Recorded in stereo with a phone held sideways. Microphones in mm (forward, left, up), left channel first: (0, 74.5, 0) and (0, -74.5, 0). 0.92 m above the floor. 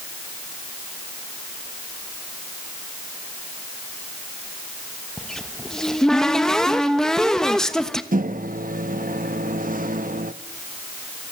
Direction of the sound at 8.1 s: 65° right (ahead or behind).